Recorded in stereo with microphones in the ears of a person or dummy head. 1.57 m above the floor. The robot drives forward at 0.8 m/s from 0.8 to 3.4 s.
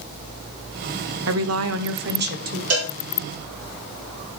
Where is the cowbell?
85° right, 1.9 m.